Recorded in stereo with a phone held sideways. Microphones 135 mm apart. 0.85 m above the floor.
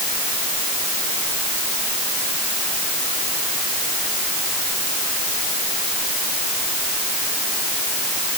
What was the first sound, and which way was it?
Only background noise.